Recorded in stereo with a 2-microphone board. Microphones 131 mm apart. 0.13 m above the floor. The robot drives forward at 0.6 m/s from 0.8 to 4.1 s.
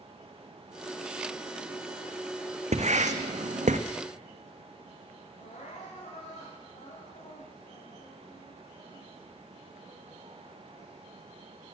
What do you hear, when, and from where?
2.7 s writing: 65° right (ahead or behind), 1.4 m; by 3.8 s 85° right, 1.3 m
5.4 s crying: 75° left (ahead or behind), 6 m